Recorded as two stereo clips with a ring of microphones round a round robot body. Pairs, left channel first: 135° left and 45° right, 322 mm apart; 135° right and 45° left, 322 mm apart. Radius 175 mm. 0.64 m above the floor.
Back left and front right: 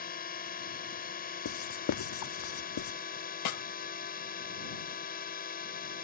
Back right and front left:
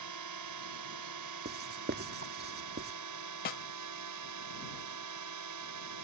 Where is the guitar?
I don't hear a guitar.